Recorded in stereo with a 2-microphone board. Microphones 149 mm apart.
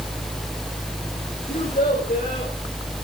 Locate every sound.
1.5 s a child speaking: 80° left, 7.5 m; by 2.5 s 75° left (ahead or behind), 8.5 m